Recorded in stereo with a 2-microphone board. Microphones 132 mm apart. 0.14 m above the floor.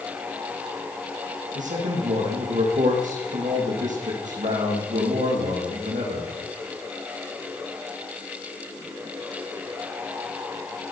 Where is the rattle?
No rattle in this recording.